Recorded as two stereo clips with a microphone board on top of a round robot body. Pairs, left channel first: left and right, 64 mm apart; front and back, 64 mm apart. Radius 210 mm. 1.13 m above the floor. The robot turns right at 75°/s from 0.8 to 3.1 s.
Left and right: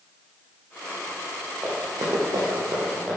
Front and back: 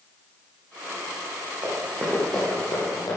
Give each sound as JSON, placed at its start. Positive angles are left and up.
{"t": 1.6, "sound": "running footsteps", "azimuth_deg": -160, "distance_m": 4.0}